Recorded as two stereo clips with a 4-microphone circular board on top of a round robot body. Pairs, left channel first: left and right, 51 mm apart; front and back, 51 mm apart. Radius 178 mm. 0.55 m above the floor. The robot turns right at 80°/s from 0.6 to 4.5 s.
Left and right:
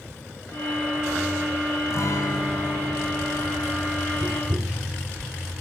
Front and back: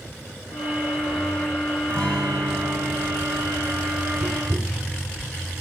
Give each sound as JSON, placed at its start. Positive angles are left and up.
{"t": 1.9, "sound": "a guitar", "azimuth_deg": 65, "distance_m": 6.0}
{"t": 4.2, "sound": "tapping", "azimuth_deg": -150, "distance_m": 2.0}